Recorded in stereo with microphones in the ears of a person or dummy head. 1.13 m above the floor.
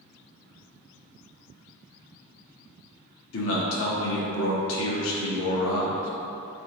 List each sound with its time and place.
3.3 s a man speaking: 75° left (ahead or behind), 0.9 m